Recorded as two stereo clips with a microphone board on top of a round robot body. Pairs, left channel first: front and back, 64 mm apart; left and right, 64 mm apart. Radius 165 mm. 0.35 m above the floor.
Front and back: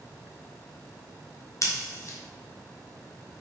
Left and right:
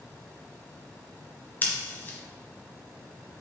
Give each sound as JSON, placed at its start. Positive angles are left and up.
{"t": 1.6, "sound": "scissors", "azimuth_deg": 30, "distance_m": 1.0}